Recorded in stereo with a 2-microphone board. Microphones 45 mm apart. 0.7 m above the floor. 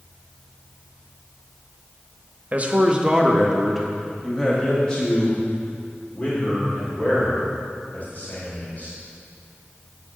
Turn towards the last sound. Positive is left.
turn(degrees=40)  # may be behind; listen again after turning